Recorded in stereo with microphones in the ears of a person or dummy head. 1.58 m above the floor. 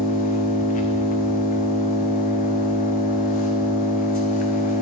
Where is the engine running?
40° left (ahead or behind), 0.7 m.